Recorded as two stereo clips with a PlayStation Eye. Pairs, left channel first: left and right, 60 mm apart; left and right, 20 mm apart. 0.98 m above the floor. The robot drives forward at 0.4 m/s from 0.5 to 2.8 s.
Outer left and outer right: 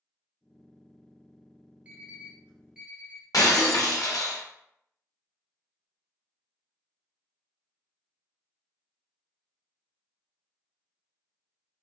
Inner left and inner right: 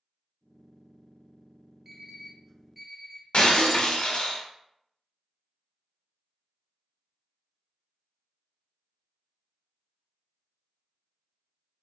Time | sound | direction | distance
1.9 | an alarm clock | 25° right (ahead or behind) | 0.6 m
3.3 | breaking glass | 90° left | 0.6 m